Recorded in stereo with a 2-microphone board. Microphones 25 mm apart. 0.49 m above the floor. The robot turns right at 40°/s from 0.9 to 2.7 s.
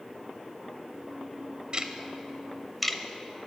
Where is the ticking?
40° right (ahead or behind), 0.8 m; by 3.0 s centre (ahead or behind), 0.8 m.